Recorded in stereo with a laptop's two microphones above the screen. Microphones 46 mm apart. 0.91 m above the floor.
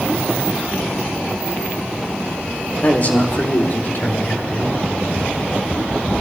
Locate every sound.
2.8 s a man speaking: 40° left (ahead or behind), 1.9 m; by 4.8 s 75° left (ahead or behind), 4 m